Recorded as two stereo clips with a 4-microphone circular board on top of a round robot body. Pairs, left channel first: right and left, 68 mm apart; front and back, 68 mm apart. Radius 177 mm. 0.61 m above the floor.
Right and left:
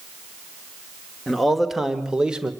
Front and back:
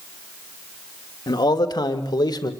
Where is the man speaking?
Straight ahead, 2.5 m; by 2.5 s 15° left, 2.5 m.